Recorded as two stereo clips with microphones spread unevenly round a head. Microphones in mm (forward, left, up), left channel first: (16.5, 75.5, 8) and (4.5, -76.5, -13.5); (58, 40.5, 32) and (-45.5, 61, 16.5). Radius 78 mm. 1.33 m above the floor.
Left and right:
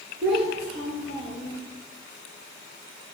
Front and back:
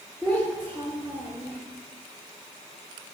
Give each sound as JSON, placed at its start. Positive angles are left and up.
{"t": 0.2, "sound": "a child speaking", "azimuth_deg": -110, "distance_m": 3.5}